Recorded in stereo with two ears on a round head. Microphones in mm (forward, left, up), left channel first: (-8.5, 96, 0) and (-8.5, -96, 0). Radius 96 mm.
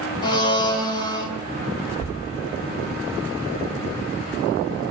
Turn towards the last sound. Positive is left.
turn(degrees=85)